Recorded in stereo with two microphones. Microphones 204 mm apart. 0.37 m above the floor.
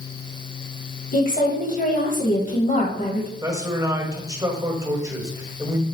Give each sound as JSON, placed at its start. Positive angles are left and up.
{"t": 1.1, "sound": "a woman speaking", "side_deg": 40, "distance_m": 1.7}
{"t": 3.4, "sound": "a man speaking", "side_deg": -15, "distance_m": 1.9}